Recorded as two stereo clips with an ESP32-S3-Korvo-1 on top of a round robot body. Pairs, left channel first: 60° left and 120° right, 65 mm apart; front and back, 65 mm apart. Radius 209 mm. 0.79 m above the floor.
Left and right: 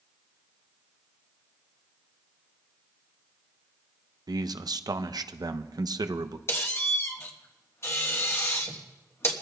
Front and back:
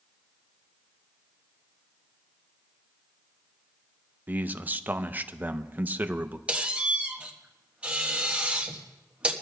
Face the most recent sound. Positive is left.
turn(degrees=110)